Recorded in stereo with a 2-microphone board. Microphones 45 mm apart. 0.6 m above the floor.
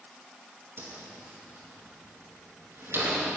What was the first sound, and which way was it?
A whoosh, 65° right (ahead or behind).